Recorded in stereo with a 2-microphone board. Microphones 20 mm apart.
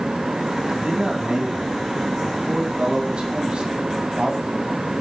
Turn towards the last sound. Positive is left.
turn(degrees=-50)  # may be behind; listen again after turning